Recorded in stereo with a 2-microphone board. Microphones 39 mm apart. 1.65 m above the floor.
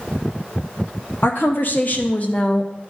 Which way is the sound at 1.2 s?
65° left (ahead or behind).